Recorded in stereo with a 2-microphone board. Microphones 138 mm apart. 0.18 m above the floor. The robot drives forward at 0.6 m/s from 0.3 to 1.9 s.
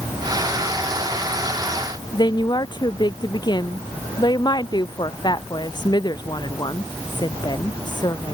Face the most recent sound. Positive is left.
turn(degrees=35)  # may be behind; listen again after turning